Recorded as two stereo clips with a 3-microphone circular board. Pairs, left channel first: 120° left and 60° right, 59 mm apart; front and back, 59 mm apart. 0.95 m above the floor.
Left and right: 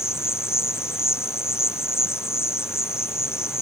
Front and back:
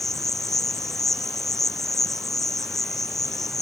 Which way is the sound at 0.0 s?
85° left.